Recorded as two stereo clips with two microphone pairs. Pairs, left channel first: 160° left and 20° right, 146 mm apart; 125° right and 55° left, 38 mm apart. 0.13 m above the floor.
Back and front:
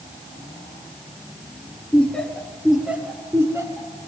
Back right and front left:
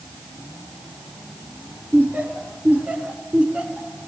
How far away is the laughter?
About 2.5 m.